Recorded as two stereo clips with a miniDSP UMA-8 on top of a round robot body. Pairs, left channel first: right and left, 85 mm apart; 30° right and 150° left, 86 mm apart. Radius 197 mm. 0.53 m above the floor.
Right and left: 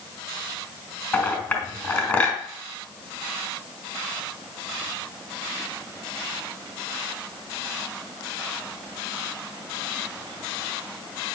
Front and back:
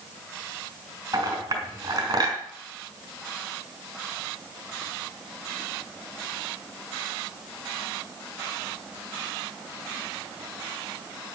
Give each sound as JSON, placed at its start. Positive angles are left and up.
{"t": 1.1, "sound": "a clink", "azimuth_deg": -160, "distance_m": 3.0}